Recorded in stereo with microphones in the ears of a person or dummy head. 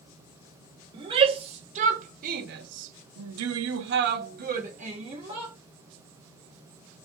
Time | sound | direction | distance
0.9 | a shout | 30° right (ahead or behind) | 1.5 m